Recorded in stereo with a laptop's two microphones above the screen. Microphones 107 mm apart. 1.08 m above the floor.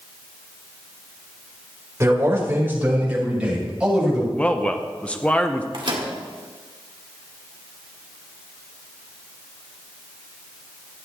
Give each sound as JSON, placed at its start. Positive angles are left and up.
{"t": 2.0, "sound": "a man speaking", "side_deg": -30, "distance_m": 4.5}
{"t": 4.4, "sound": "a man speaking", "side_deg": 10, "distance_m": 0.9}
{"t": 5.7, "sound": "a microwave", "side_deg": -55, "distance_m": 1.9}